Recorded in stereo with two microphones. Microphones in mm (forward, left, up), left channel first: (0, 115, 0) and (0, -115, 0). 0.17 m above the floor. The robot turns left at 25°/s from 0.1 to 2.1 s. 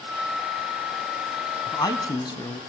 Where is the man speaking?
15° left (ahead or behind), 1.0 m; by 2.6 s 20° left (ahead or behind), 1.0 m.